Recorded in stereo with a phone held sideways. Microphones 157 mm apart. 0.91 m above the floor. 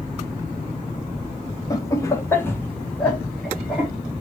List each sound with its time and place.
1.7 s laughter: 20° left (ahead or behind), 0.9 m; by 3.9 s centre (ahead or behind), 1.3 m